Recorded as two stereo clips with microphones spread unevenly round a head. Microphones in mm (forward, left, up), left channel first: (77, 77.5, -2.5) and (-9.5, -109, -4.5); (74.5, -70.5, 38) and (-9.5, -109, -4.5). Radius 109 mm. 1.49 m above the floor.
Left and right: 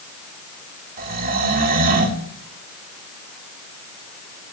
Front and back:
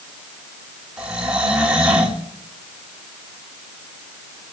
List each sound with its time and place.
1.0 s snoring: 70° right, 2.5 m